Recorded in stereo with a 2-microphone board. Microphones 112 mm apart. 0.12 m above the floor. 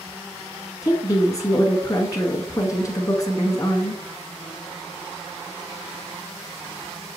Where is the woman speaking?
30° left (ahead or behind), 1.3 m.